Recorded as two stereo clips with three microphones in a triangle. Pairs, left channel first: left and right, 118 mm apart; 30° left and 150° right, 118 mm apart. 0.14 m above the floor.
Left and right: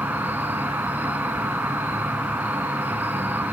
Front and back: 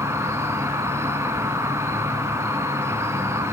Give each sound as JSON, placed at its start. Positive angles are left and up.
{"t": 0.0, "sound": "an insect", "azimuth_deg": -140, "distance_m": 1.1}